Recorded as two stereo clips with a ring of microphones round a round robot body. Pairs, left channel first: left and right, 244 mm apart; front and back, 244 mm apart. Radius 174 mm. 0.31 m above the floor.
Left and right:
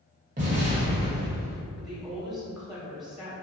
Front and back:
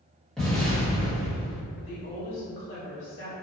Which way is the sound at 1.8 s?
Straight ahead.